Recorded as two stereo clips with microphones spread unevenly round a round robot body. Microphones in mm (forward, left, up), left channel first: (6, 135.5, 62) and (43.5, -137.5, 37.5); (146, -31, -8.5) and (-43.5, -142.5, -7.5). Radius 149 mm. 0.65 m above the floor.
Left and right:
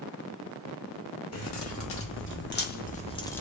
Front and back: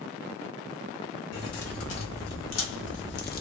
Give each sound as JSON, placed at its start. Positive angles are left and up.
{"t": 1.3, "sound": "keys jangling", "azimuth_deg": 60, "distance_m": 1.6}